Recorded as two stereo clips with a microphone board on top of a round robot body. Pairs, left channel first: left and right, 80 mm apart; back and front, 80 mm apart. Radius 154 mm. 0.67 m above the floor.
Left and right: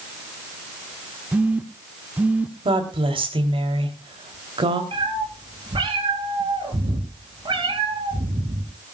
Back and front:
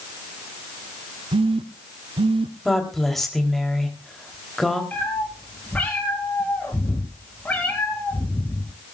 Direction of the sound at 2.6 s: 95° right.